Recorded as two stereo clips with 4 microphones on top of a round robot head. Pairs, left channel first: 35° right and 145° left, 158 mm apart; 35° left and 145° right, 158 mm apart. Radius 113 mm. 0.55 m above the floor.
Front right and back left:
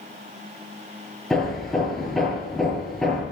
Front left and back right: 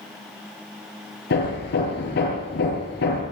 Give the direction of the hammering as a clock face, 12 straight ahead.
10 o'clock.